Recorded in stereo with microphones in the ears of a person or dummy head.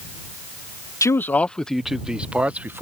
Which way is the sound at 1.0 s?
15° left (ahead or behind).